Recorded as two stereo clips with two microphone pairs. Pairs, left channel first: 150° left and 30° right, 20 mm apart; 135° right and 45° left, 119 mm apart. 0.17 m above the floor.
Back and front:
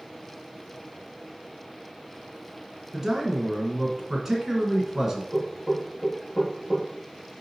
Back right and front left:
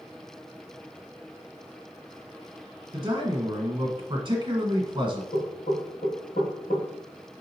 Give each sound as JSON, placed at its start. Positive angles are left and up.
{"t": 2.9, "sound": "a man speaking", "azimuth_deg": 40, "distance_m": 1.3}
{"t": 5.3, "sound": "knocking", "azimuth_deg": -100, "distance_m": 2.0}